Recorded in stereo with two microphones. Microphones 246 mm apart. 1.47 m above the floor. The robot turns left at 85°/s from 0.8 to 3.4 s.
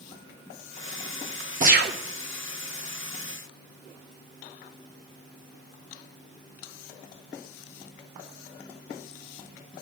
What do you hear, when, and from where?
1.6 s a gunshot: 35° right, 1.2 m; by 2.0 s 70° right, 1.2 m